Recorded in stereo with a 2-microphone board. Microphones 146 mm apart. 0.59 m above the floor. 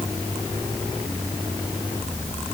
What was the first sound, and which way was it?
Only background noise.